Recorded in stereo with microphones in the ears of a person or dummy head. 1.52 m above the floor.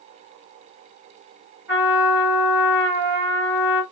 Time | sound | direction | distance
1.7 | a trumpet | 15° right (ahead or behind) | 3.5 m